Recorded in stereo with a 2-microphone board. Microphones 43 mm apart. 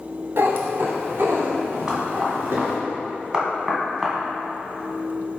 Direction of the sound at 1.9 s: 20° right (ahead or behind).